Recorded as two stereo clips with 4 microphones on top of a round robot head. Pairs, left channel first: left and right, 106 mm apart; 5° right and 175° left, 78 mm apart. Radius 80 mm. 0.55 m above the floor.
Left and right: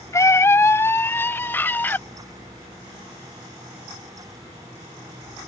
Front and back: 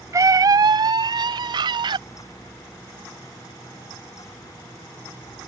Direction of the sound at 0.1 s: 145° left.